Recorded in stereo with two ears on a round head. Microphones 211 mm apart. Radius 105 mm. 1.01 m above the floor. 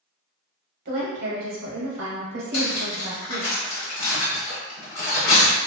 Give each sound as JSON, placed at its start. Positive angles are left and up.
{"t": 0.8, "sound": "a woman speaking", "side_deg": -45, "distance_m": 0.9}
{"t": 2.5, "sound": "cutlery clinking", "side_deg": 70, "distance_m": 1.3}